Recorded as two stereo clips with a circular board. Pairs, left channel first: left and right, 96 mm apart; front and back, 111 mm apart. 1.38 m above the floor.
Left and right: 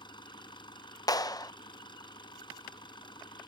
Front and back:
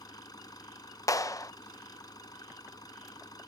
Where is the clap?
50° left.